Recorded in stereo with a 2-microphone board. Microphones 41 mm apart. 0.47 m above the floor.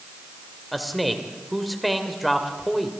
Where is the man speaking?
Centre (ahead or behind), 2 m.